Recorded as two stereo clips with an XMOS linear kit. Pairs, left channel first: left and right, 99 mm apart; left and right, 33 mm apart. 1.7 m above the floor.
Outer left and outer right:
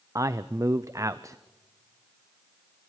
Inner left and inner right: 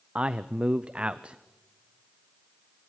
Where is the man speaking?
35° right (ahead or behind), 0.6 m.